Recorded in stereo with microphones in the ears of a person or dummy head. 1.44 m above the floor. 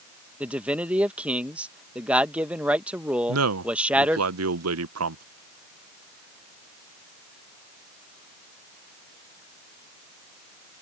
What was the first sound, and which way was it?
A man speaking, centre (ahead or behind).